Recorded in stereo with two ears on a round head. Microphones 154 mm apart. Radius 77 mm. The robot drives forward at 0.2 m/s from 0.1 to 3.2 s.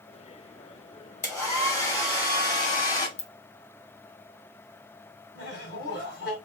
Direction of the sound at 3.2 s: 30° left (ahead or behind).